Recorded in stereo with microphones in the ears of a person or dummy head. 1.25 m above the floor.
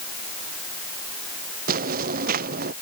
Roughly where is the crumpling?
I don't hear crumpling.